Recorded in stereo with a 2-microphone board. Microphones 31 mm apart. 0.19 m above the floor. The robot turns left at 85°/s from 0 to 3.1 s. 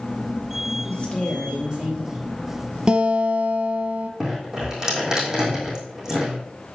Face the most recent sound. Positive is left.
turn(degrees=-20)  # may be behind; listen again after turning